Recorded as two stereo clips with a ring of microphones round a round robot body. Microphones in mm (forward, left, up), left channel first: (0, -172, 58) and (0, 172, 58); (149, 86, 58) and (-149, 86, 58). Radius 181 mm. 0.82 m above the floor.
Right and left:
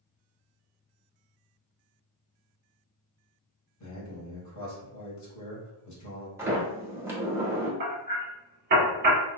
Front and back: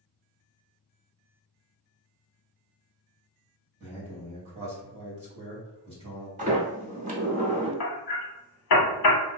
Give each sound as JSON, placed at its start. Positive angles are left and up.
{"t": 3.8, "sound": "a man speaking", "azimuth_deg": -115, "distance_m": 1.4}
{"t": 6.4, "sound": "a sliding door", "azimuth_deg": 165, "distance_m": 0.9}
{"t": 7.8, "sound": "hammering", "azimuth_deg": 25, "distance_m": 0.7}